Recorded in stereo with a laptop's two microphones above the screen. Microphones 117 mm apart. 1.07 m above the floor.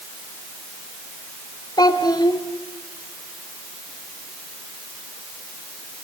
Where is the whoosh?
No whoosh in this recording.